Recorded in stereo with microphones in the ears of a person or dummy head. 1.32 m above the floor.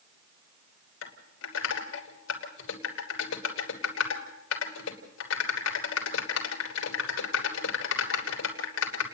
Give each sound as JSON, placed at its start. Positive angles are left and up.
{"t": 1.0, "sound": "typing on a keyboard", "side_deg": 85, "distance_m": 3.0}